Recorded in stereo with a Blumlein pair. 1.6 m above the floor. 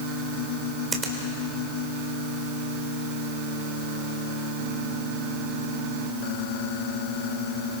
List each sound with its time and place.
0.9 s a finger snap: 15° right, 4 m